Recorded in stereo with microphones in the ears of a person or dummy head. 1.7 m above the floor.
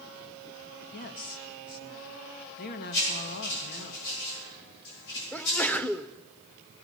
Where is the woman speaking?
50° left (ahead or behind), 1.5 m.